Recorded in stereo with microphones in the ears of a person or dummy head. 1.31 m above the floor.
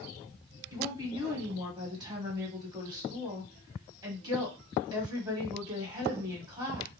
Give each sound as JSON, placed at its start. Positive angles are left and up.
{"t": 0.7, "sound": "a woman speaking", "side_deg": -25, "distance_m": 1.4}